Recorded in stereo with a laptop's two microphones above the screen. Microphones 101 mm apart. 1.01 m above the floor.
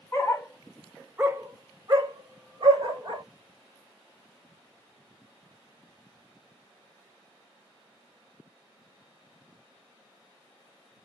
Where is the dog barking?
30° left (ahead or behind), 0.8 m; by 3.2 s 60° right (ahead or behind), 1.5 m.